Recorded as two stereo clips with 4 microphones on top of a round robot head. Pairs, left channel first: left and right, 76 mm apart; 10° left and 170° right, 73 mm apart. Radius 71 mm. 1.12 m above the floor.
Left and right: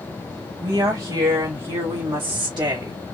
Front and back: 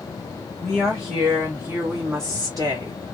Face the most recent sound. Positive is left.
turn(degrees=-130)